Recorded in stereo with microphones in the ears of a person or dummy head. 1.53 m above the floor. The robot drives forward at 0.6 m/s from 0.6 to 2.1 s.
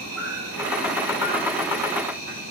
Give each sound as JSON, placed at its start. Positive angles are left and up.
{"t": 0.0, "sound": "an insect", "side_deg": -80, "distance_m": 3.5}